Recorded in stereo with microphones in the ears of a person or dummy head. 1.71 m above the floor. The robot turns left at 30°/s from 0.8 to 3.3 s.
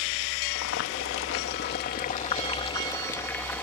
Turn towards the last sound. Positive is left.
turn(degrees=5)